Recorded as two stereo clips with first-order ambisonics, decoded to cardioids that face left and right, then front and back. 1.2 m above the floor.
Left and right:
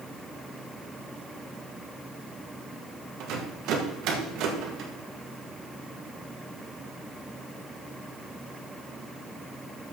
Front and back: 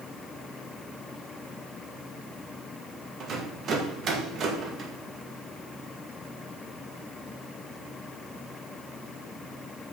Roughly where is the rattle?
Behind right.